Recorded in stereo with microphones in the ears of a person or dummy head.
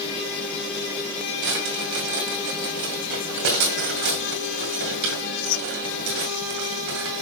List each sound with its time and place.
1.4 s a drawer: 55° right (ahead or behind), 2 m